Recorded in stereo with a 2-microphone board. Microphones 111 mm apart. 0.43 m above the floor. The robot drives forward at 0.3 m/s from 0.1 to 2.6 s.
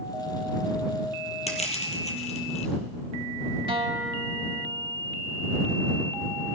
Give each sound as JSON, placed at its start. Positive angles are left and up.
{"t": 1.5, "sound": "crushing", "side_deg": 85, "distance_m": 2.0}
{"t": 3.7, "sound": "a guitar", "side_deg": -55, "distance_m": 0.9}